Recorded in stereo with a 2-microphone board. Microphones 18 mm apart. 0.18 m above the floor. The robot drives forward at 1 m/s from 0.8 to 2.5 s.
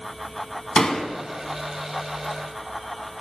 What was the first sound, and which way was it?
A door slam, 25° left (ahead or behind).